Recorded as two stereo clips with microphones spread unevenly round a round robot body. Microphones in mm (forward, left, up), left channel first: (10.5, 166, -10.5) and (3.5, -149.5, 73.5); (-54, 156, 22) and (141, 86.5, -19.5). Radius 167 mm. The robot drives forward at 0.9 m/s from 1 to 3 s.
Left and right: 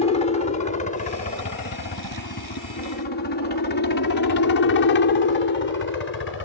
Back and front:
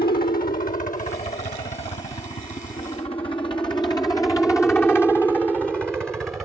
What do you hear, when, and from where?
0.0 s a helicopter: 130° left; by 6.5 s 65° left